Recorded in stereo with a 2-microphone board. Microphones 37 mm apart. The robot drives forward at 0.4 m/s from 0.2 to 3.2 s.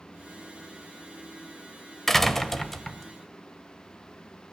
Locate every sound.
2.1 s a door slam: 10° left (ahead or behind), 1.0 m; by 3.1 s 5° left (ahead or behind), 1.2 m